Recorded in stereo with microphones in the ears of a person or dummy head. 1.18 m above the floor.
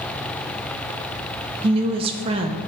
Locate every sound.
1.6 s a woman speaking: 30° right (ahead or behind), 0.6 m